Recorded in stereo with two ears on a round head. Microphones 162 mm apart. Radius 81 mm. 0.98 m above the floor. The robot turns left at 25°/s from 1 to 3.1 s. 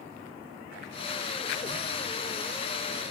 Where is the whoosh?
45° left (ahead or behind), 0.8 m; by 3.1 s 5° left (ahead or behind), 0.8 m.